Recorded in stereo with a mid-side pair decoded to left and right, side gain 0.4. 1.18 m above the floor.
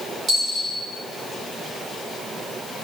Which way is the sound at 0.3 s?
70° right.